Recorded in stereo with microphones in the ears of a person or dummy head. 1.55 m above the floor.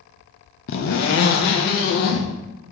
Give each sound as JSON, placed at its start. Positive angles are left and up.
{"t": 0.7, "sound": "a zipper", "side_deg": 40, "distance_m": 0.7}